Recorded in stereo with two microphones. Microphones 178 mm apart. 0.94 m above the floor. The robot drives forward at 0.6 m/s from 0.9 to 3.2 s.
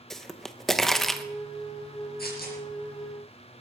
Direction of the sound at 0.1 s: 5° left (ahead or behind).